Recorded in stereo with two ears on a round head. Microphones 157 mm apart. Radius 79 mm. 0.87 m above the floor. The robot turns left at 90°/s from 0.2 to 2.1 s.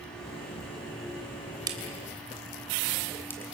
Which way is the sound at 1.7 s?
25° right (ahead or behind).